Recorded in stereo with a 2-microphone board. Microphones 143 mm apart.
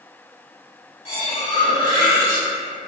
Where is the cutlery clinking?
35° left (ahead or behind), 1.1 m.